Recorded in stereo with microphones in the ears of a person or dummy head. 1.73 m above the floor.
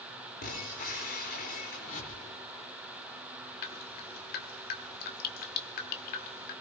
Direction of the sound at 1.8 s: 45° left (ahead or behind).